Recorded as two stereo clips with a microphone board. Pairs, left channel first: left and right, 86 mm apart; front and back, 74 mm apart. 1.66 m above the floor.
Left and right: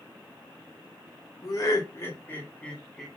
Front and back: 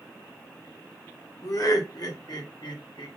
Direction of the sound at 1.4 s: 45° left.